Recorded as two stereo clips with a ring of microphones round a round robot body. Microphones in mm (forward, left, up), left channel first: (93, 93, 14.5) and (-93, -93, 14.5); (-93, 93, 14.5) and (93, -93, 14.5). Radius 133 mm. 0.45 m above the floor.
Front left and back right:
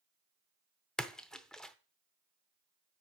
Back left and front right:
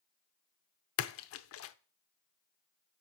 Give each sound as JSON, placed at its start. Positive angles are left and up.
{"t": 1.0, "sound": "a splash", "azimuth_deg": 130, "distance_m": 0.7}